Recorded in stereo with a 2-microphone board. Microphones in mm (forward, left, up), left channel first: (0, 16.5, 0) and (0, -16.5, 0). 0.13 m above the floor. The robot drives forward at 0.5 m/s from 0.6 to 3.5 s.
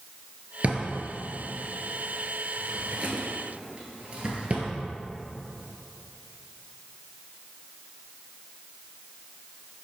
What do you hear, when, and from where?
0.6 s a drawer: 40° right (ahead or behind), 1.2 m; by 4.7 s 35° right (ahead or behind), 1.3 m